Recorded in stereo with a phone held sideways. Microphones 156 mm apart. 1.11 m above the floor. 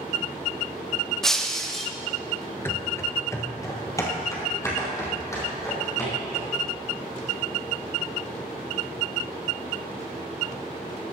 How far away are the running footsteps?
About 1.1 m.